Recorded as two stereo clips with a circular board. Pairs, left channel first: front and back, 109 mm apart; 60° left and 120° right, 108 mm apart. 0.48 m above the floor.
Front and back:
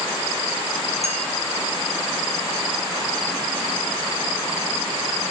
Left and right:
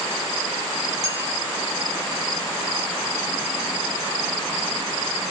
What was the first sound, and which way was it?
A clink, straight behind.